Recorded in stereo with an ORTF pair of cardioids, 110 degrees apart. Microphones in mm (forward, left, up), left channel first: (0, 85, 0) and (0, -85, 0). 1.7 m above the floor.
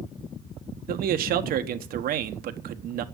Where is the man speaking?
60° right, 1.2 m.